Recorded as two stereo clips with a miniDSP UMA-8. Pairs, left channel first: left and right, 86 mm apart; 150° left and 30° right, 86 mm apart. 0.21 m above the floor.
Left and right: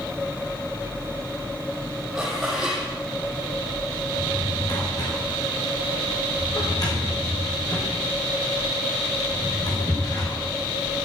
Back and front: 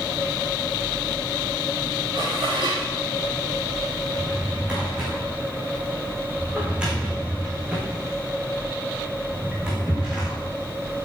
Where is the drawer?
45° left, 5 m.